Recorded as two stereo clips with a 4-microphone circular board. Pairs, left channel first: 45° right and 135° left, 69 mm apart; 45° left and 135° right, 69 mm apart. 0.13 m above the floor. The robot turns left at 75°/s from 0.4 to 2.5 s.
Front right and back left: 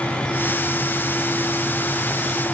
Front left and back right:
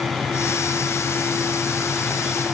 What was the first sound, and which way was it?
Only background noise.